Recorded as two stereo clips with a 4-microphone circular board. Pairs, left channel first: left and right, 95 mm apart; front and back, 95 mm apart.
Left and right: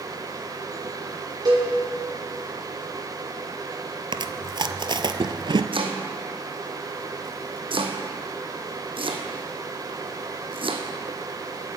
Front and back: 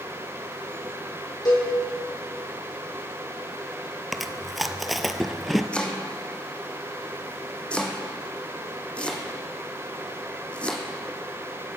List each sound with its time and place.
1.4 s a cowbell: 45° right, 4 m
4.1 s chewing: 90° right, 0.6 m
5.7 s chopping: 75° right, 1.2 m